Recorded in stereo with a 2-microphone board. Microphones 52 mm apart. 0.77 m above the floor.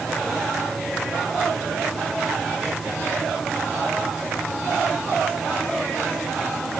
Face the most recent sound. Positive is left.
No sound to turn to.